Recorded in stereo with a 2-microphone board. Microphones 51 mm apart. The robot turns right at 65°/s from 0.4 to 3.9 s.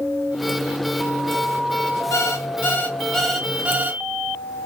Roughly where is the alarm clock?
Left.